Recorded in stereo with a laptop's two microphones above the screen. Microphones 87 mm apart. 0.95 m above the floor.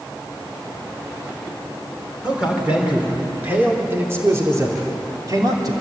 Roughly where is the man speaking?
Centre.